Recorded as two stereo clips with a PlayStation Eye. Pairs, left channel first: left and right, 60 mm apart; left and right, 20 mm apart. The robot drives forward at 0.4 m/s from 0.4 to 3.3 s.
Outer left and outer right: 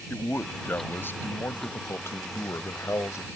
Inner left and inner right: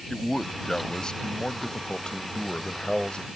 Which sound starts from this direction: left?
A man speaking, at 0.1 s.